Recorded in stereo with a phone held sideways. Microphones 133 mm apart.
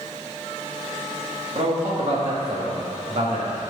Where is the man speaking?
50° right (ahead or behind), 2 m.